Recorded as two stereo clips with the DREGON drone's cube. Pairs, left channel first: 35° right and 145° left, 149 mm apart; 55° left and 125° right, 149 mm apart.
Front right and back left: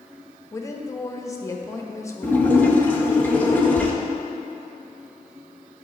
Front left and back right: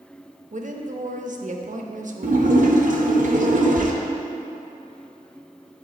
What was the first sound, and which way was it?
A woman speaking, 100° right.